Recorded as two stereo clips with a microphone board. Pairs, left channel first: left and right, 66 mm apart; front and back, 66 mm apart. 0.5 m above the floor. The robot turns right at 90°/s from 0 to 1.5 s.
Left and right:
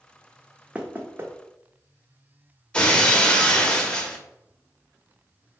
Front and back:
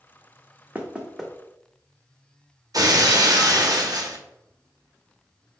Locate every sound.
0.8 s knocking: 140° right, 0.7 m; by 1.3 s 90° right, 0.7 m
2.7 s breaking glass: 165° left, 0.6 m